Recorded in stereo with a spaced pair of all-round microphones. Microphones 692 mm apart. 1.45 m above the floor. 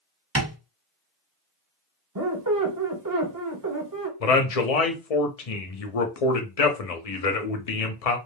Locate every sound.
0.3 s tapping: 20° right (ahead or behind), 1.6 m
2.1 s a squeak: 30° right (ahead or behind), 0.7 m
4.2 s a man speaking: 60° left (ahead or behind), 0.7 m